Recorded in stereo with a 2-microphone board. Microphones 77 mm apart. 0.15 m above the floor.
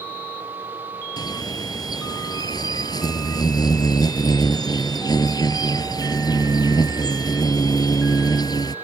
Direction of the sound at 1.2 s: 60° left (ahead or behind).